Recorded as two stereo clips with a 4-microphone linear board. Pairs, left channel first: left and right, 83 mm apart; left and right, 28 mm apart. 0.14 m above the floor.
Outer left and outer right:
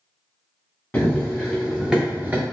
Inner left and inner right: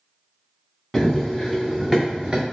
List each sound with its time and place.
0.9 s running footsteps: 15° left (ahead or behind), 1.1 m; by 2.4 s 25° right (ahead or behind), 0.8 m